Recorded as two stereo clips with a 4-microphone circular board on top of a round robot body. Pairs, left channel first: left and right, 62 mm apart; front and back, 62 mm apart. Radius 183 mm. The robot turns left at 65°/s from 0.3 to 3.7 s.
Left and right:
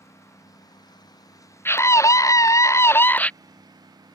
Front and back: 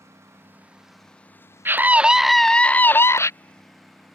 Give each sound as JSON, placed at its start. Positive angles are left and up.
{"t": 0.0, "sound": "a lawn mower", "azimuth_deg": 130}
{"t": 1.6, "sound": "a scream", "azimuth_deg": 135}